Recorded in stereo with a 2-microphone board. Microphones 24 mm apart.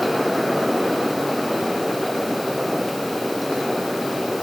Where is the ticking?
No ticking in this recording.